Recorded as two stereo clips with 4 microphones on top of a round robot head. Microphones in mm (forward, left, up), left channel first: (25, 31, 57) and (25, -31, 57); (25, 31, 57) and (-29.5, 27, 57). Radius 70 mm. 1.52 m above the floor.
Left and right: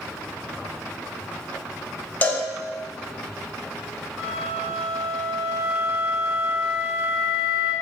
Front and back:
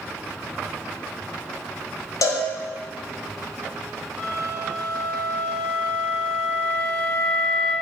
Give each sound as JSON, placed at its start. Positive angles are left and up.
{"t": 2.2, "sound": "a cowbell", "azimuth_deg": 25, "distance_m": 0.6}
{"t": 4.2, "sound": "a flute", "azimuth_deg": -105, "distance_m": 1.6}